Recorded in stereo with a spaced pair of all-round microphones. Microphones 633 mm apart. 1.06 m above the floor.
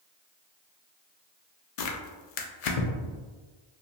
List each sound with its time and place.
1.8 s tearing paper: 70° left (ahead or behind), 0.5 m